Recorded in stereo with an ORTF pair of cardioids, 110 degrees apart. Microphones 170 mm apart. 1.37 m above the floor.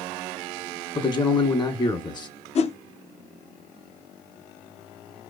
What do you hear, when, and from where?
0.9 s a man speaking: 25° left, 1.6 m
2.5 s a whoosh: 40° left, 0.7 m